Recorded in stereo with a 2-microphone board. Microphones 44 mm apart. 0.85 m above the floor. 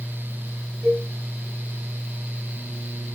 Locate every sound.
0.8 s a cowbell: 40° right (ahead or behind), 6 m